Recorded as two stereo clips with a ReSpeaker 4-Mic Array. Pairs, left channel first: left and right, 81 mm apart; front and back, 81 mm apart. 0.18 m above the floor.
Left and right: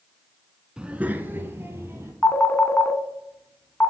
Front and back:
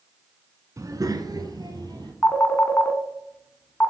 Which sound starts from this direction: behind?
A child speaking, at 0.8 s.